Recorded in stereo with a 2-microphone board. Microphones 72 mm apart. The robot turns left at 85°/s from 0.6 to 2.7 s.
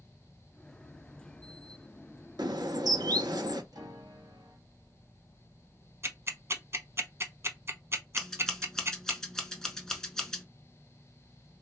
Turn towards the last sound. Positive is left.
turn(degrees=5)  # may be behind; listen again after turning